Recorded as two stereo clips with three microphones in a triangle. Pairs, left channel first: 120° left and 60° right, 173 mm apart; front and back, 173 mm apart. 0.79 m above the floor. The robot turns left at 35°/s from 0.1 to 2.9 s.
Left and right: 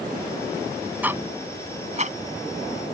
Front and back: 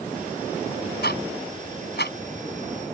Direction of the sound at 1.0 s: 20° left.